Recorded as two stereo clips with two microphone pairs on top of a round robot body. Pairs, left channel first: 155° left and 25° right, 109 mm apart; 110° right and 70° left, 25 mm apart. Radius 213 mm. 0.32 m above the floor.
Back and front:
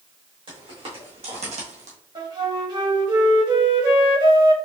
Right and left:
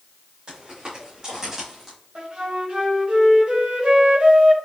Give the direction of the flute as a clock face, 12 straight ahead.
11 o'clock.